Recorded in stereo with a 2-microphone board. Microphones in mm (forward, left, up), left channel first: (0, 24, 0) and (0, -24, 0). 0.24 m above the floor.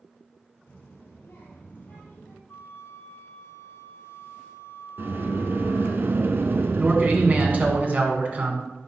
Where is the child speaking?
65° left (ahead or behind), 2.5 m; by 2.4 s 40° left (ahead or behind), 4 m.